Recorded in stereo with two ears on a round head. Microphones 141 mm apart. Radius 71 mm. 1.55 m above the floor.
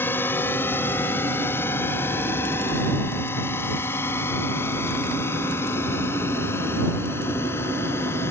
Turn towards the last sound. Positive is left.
turn(degrees=15)  # may be behind; listen again after turning